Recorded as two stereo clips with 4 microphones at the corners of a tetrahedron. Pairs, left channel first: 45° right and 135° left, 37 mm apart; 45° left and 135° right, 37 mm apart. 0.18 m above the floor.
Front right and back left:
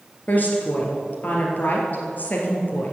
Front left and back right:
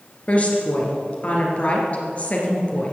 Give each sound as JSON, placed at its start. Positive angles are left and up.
{"t": 0.3, "sound": "a woman speaking", "azimuth_deg": -5, "distance_m": 2.5}